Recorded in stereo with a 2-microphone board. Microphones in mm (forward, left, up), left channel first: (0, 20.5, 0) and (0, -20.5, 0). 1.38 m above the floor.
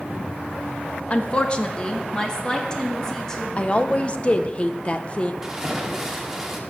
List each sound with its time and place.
1.1 s a woman speaking: 30° left (ahead or behind), 1.2 m; by 3.5 s 10° left (ahead or behind), 2.5 m
3.6 s a woman speaking: 30° left (ahead or behind), 0.9 m
5.4 s a splash: 15° right (ahead or behind), 1.8 m